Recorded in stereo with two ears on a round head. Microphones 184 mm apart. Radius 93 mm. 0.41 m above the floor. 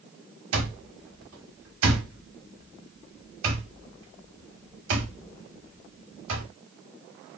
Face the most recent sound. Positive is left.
turn(degrees=-65)  # may be behind; listen again after turning